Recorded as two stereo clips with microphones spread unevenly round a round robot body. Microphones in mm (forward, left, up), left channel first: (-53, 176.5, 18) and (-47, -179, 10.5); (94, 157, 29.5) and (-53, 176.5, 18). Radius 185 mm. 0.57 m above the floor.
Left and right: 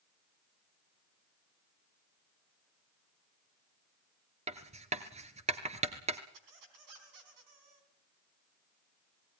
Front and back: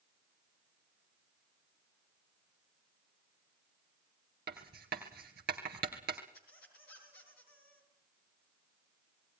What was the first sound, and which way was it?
Writing, 160° right.